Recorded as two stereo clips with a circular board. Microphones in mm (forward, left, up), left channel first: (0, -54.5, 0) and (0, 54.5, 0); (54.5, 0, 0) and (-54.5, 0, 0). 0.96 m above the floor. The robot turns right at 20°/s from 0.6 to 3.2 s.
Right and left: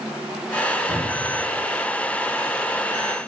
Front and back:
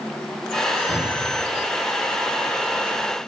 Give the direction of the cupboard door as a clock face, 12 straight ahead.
10 o'clock.